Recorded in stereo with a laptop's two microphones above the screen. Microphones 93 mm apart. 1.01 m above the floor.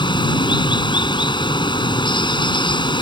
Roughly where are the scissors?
No scissors in this recording.